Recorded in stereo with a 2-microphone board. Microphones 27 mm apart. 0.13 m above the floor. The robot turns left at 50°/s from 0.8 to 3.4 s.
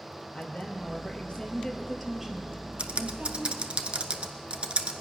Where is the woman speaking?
65° left, 2.5 m; by 3.7 s 65° right, 2.5 m.